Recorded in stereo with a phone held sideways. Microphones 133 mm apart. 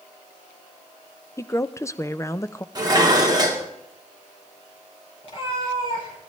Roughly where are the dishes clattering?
Right.